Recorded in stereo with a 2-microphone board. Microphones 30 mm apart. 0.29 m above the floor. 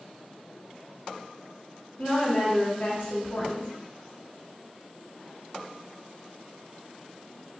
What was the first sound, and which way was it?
A woman speaking, 55° left (ahead or behind).